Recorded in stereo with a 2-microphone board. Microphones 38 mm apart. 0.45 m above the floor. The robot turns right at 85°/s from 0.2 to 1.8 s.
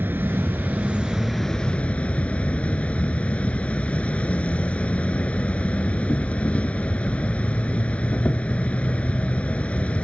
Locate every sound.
0.0 s an insect: 100° right; by 10.1 s 40° left